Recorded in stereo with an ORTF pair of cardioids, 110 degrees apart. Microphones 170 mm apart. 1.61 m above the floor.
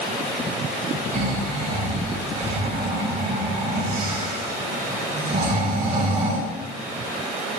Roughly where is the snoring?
Ahead right.